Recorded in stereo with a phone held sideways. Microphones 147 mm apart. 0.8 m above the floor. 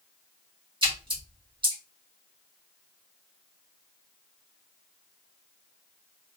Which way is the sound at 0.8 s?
35° right (ahead or behind).